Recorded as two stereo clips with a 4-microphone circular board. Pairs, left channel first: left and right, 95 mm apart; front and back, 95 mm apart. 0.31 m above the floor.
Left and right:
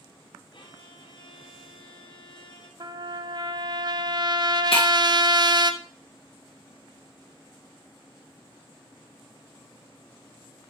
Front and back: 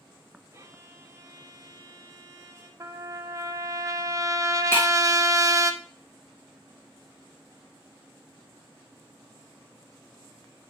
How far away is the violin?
About 1.1 m.